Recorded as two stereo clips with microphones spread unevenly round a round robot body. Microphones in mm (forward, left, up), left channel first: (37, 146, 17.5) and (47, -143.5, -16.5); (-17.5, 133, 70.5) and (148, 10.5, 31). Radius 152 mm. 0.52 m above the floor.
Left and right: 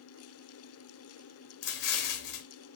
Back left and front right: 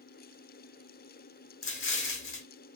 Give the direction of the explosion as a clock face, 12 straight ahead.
8 o'clock.